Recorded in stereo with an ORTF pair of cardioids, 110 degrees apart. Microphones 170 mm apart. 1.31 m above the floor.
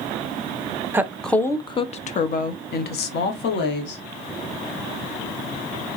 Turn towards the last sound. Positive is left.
turn(degrees=75)